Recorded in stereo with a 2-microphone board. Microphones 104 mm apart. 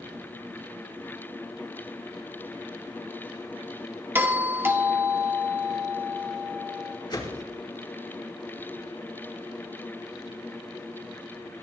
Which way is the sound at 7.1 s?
45° left (ahead or behind).